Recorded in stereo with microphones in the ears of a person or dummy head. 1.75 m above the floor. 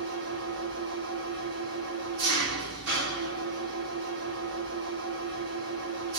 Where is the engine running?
60° right (ahead or behind), 1.3 m.